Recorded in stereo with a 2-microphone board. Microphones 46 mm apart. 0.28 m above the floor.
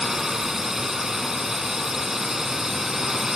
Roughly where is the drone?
Centre.